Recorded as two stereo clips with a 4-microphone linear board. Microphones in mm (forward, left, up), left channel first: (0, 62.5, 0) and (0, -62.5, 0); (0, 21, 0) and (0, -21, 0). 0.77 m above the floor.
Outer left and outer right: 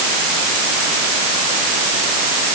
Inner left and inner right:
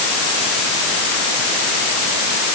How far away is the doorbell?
No doorbell in this recording.